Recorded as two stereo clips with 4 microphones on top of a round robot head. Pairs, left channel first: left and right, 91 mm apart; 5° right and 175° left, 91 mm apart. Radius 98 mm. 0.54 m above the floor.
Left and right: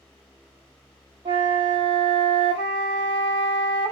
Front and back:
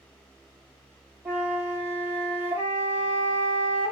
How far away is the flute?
About 3 m.